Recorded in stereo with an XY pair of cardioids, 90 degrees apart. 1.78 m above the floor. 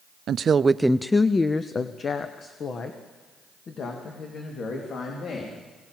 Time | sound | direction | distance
0.3 | a woman speaking | 65° right | 0.6 m